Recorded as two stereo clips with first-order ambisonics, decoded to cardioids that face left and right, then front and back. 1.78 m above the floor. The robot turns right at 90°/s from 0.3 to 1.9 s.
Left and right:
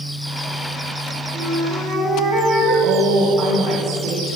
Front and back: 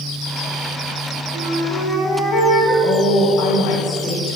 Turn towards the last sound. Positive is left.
turn(degrees=-50)